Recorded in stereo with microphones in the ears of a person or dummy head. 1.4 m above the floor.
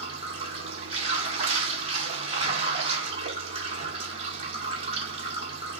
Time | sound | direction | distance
0.0 | running water | 25° right (ahead or behind) | 1.5 m